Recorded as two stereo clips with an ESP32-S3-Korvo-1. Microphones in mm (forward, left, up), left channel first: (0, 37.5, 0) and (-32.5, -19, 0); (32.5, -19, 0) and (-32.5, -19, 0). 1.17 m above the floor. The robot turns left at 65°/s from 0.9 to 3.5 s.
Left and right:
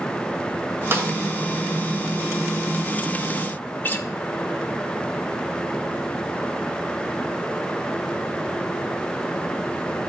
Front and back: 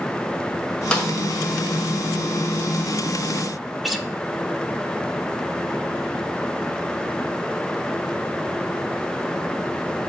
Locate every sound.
0.9 s a snare drum: 75° right, 1.5 m; by 1.1 s 85° right, 1.5 m
3.8 s a guitar: 90° left, 0.7 m